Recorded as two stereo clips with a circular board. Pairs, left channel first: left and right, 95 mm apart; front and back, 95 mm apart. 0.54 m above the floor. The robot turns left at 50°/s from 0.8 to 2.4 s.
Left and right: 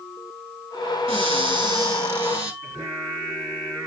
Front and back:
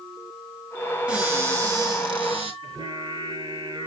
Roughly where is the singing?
Behind.